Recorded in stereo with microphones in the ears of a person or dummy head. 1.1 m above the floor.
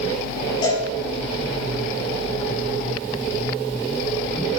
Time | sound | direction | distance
0.6 | a cowbell | 25° left (ahead or behind) | 6 m